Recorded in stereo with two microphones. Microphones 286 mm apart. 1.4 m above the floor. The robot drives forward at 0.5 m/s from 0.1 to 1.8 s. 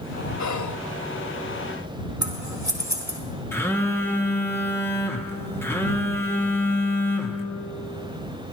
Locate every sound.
0.4 s whispering: 70° left (ahead or behind), 0.6 m; by 0.8 s 90° left, 0.5 m
2.2 s scissors: 75° right (ahead or behind), 2.0 m
3.5 s a phone buzzing: 10° left (ahead or behind), 1.1 m